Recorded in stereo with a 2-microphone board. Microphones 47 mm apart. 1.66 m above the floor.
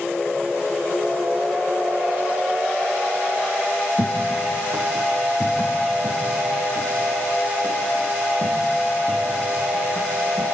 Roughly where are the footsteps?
Right.